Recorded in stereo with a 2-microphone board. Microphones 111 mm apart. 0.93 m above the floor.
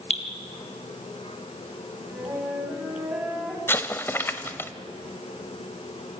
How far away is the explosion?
About 0.9 m.